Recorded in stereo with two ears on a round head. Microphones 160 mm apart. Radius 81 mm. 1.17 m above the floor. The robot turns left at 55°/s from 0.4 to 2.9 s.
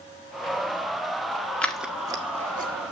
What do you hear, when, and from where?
1.6 s scissors: 5° left (ahead or behind), 1.2 m; by 2.9 s 60° right (ahead or behind), 1.2 m